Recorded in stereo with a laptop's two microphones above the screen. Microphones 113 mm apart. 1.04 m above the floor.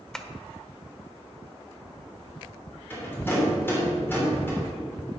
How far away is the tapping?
About 1.0 m.